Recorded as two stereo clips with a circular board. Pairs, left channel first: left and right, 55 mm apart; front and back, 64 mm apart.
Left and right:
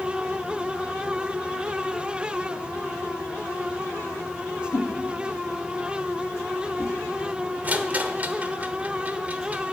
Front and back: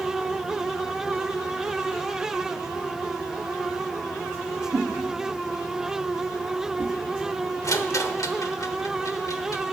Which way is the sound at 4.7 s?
140° left.